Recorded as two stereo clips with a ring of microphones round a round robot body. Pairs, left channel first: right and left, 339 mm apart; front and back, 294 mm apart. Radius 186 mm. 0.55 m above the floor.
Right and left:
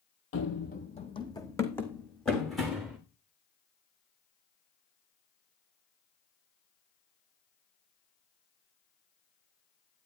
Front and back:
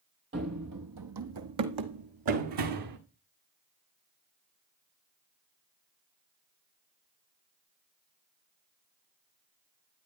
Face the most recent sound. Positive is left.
turn(degrees=180)